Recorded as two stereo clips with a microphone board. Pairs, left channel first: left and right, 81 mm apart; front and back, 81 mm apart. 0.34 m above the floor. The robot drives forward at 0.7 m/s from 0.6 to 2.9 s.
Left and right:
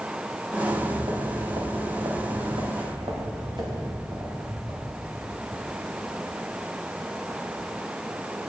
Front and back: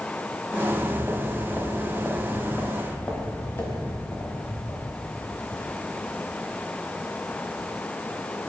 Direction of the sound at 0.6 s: 90° right.